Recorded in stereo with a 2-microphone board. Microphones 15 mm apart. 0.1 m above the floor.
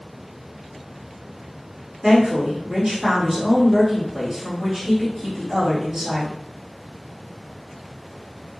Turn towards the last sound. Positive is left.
turn(degrees=-20)  # may be behind; listen again after turning